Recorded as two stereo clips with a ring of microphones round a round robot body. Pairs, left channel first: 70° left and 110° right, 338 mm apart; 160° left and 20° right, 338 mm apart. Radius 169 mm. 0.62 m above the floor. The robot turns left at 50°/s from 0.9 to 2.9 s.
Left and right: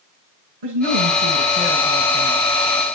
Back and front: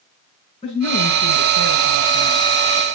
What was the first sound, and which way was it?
A woman speaking, 130° right.